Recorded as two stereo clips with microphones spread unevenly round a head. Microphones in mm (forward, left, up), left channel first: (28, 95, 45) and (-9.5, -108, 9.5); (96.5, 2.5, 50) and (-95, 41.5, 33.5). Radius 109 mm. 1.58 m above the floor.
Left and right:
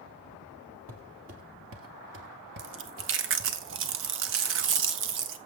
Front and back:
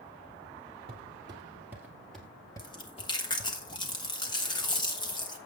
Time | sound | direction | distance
0.9 | footsteps | 125° right | 2.5 m
2.6 | chewing | 75° right | 1.1 m